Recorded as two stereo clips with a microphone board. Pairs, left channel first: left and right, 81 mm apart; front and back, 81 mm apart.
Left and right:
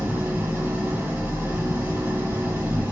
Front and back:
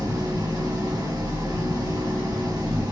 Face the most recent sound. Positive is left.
turn(degrees=-150)